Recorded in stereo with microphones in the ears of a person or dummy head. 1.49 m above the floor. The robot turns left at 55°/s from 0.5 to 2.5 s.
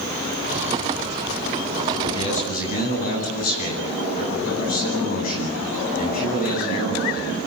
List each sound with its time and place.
2.0 s a man speaking: 20° left (ahead or behind), 10 m; by 7.4 s 45° left (ahead or behind), 10 m